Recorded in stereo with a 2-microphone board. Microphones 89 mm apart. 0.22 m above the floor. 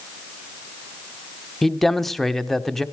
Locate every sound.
1.6 s a man speaking: 5° left (ahead or behind), 1.1 m